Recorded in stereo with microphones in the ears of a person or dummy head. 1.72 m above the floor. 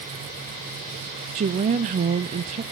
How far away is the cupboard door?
I don't hear a cupboard door.